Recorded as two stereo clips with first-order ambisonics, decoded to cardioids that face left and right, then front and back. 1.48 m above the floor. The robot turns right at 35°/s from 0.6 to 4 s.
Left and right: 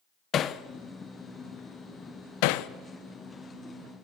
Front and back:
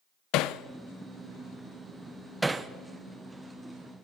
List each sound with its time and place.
0.3 s hammering: 30° left, 0.8 m; by 2.7 s 105° left, 0.8 m